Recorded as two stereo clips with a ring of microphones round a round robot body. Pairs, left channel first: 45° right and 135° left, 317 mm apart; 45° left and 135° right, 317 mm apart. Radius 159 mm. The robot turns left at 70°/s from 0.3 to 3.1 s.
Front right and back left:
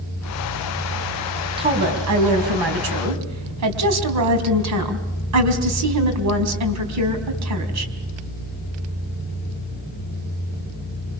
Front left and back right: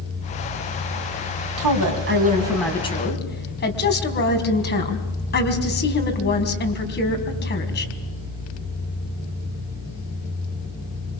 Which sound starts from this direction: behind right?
A woman speaking, at 1.6 s.